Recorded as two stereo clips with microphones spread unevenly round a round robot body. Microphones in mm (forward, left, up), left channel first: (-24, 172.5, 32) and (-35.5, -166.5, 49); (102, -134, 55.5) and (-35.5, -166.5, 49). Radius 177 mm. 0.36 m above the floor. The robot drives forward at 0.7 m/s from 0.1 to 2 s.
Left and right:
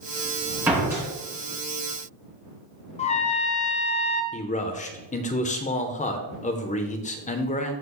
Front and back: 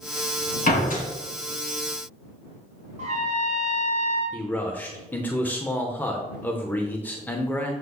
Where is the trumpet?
155° left, 0.7 m.